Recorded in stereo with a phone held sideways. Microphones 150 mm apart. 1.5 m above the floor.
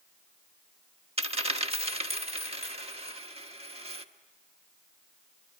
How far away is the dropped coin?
About 1.2 m.